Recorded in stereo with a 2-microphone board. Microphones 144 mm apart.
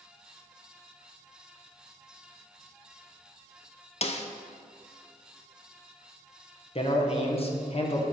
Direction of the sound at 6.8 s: 45° left (ahead or behind).